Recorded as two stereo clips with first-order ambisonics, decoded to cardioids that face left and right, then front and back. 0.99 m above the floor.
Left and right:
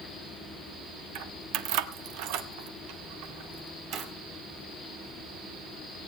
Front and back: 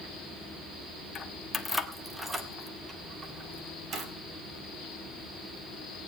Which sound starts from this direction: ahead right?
Keys jangling, at 1.1 s.